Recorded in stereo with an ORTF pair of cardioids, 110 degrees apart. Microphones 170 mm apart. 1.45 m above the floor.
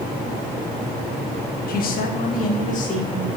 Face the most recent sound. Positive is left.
turn(degrees=45)